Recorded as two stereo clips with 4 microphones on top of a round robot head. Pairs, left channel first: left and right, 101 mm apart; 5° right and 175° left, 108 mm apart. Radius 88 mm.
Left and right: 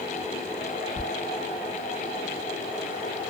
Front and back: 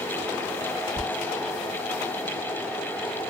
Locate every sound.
1.0 s a squeak: 135° right, 1.2 m